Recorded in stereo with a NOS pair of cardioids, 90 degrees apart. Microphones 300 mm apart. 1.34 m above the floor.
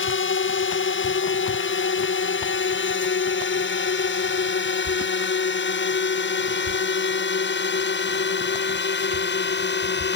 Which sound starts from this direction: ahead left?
A drone, at 0.0 s.